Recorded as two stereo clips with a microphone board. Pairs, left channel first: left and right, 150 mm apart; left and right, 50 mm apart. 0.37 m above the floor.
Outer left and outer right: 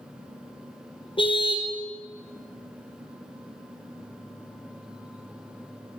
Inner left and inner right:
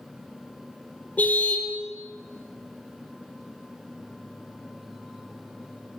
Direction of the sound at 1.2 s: 35° left (ahead or behind).